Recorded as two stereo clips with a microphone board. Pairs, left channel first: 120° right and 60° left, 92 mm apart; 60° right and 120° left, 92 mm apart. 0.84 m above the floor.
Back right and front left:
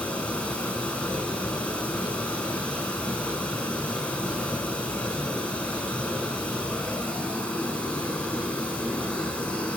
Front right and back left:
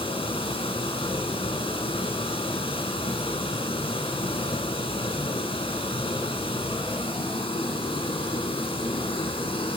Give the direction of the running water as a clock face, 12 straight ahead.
2 o'clock.